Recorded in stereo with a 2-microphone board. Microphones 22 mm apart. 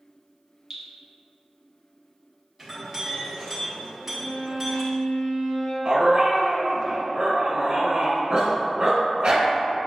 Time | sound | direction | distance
0.7 | dripping | 15° right (ahead or behind) | 1.0 m
2.6 | a clink | 10° right (ahead or behind) | 1.5 m
4.0 | a violin | 55° left (ahead or behind) | 1.4 m
5.8 | a dog barking | 35° right (ahead or behind) | 1.3 m